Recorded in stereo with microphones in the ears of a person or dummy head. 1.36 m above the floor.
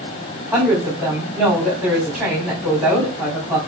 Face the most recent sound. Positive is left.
turn(degrees=0)  # may be behind; listen again after turning